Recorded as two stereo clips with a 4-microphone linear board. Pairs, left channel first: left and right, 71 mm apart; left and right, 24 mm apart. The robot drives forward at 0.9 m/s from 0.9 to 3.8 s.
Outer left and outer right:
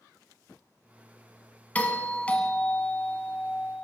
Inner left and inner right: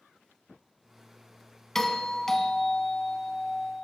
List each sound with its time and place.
1.8 s a doorbell: 20° left (ahead or behind), 1.5 m; by 3.9 s 15° left (ahead or behind), 2.5 m